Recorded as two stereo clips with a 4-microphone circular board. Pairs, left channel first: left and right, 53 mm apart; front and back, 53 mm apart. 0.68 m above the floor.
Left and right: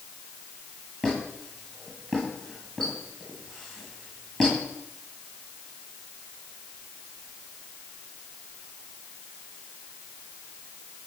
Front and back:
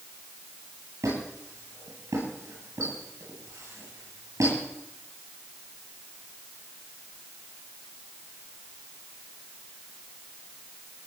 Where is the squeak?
165° left, 10 m.